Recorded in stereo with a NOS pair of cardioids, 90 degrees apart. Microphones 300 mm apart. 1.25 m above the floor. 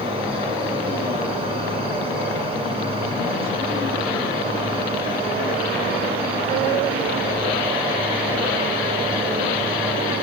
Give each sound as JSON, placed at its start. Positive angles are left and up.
{"t": 0.0, "sound": "an insect", "azimuth_deg": -20, "distance_m": 10.0}